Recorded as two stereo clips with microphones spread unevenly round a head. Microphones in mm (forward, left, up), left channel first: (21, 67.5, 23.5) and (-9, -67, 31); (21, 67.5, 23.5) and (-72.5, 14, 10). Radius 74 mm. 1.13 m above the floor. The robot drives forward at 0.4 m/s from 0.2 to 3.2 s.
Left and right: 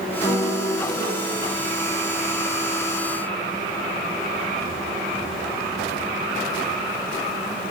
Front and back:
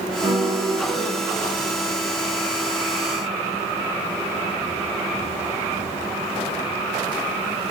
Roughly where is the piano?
Behind left.